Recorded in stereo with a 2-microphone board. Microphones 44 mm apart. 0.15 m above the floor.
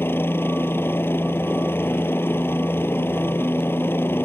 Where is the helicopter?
65° left (ahead or behind).